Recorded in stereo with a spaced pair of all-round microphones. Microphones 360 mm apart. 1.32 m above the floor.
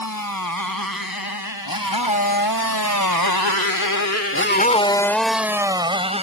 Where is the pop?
No pop in this recording.